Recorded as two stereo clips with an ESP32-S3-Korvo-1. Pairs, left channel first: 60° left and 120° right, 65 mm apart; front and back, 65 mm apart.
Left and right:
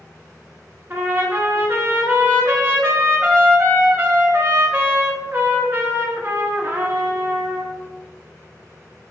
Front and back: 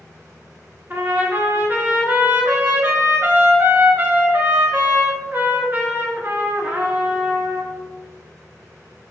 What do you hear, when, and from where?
0.9 s a trumpet: 150° right, 0.7 m